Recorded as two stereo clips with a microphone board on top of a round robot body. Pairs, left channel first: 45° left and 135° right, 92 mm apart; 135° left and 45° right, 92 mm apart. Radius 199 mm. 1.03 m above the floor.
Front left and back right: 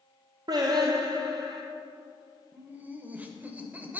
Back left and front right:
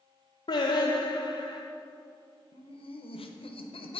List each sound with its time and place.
0.5 s singing: 175° left, 0.6 m
2.5 s laughter: 150° left, 0.8 m